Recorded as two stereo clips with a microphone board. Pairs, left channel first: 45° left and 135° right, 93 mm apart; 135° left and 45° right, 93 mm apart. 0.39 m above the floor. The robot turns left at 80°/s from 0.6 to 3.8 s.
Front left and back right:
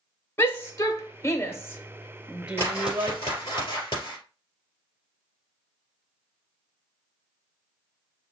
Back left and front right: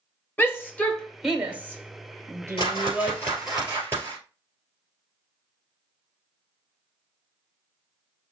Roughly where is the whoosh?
Behind left.